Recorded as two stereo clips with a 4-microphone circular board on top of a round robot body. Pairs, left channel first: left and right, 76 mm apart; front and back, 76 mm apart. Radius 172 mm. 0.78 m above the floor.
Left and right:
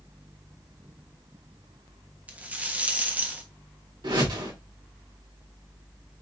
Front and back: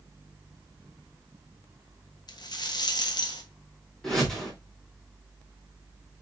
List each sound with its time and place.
2.3 s a rattle: 20° right, 1.3 m
4.0 s a whoosh: 85° right, 3 m